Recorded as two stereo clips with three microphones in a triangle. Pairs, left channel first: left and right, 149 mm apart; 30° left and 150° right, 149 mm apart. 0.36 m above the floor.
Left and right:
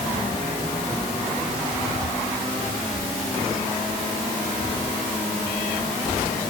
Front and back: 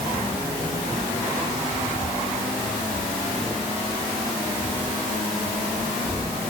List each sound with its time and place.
Only background noise.